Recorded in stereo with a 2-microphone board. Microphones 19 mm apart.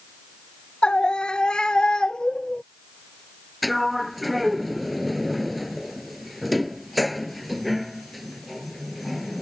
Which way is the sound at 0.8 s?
50° left (ahead or behind).